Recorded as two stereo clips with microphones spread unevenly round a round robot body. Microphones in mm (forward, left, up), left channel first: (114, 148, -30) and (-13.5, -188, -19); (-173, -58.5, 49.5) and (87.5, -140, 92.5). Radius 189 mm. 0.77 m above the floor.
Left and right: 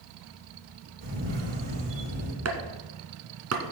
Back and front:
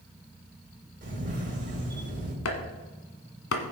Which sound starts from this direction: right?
A camera shutter, at 1.0 s.